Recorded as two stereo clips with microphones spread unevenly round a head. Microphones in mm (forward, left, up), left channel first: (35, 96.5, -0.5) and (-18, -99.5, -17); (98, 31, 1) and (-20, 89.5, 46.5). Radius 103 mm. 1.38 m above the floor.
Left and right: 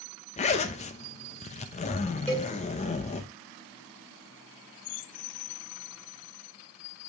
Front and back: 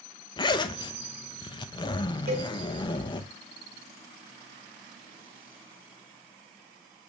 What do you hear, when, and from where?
0.4 s a zipper: 40° left, 0.7 m
2.3 s a cowbell: 155° left, 3.5 m